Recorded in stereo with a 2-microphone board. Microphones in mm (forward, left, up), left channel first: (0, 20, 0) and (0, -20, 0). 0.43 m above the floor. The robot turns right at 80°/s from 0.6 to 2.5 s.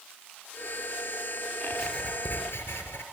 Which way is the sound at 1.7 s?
Straight ahead.